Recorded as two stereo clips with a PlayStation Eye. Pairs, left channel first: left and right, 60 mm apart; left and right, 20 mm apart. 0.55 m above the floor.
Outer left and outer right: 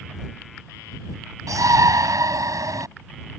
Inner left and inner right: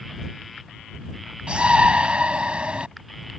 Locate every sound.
1.5 s a shout: 70° right (ahead or behind)